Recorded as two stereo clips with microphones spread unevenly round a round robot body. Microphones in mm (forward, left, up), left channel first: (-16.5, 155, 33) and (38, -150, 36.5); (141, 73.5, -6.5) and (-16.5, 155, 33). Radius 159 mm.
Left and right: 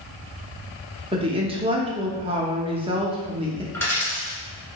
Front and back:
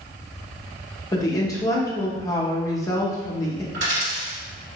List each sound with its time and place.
1.1 s a woman speaking: 20° right, 0.7 m
3.7 s a dropped coin: 175° right, 1.3 m